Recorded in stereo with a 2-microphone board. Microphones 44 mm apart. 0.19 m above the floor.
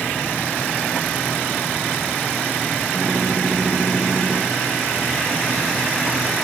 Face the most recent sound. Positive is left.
turn(degrees=30)  # may be behind; listen again after turning